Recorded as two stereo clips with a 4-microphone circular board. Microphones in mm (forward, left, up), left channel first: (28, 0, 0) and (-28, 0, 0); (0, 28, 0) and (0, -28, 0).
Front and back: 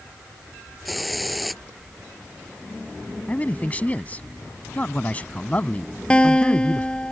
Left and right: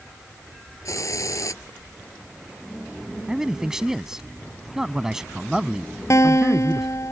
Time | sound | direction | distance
0.8 | a hiss | 90° left | ?
3.3 | a man speaking | 20° right | ?
6.1 | a guitar | 70° left | ?